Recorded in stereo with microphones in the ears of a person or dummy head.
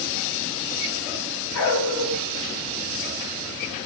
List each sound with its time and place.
1.5 s a dog barking: 75° left (ahead or behind), 5 m